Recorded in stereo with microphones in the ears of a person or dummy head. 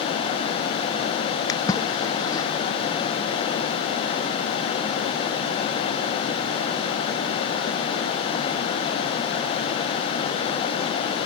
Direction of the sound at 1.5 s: 20° left (ahead or behind).